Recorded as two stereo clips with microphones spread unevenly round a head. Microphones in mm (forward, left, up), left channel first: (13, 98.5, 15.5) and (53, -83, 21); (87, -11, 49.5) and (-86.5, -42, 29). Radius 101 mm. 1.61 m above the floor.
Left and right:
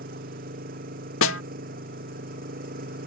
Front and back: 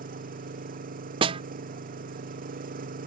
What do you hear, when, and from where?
0.0 s an engine running: 130° right
1.2 s a snare drum: 130° left